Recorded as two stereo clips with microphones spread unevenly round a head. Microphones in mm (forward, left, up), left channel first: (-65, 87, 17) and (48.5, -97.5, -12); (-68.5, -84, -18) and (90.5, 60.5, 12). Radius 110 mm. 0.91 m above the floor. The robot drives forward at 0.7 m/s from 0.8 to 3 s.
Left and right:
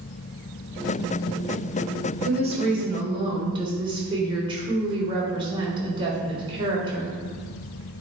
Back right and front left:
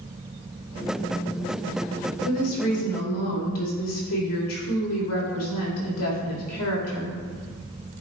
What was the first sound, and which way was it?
A woman speaking, 120° right.